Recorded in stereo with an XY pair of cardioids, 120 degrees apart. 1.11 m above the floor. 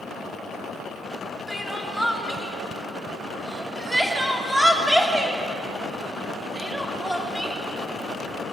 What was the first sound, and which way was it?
Crying, straight ahead.